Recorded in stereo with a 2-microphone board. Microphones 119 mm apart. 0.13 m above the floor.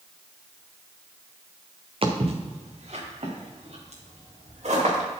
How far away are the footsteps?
About 1.7 m.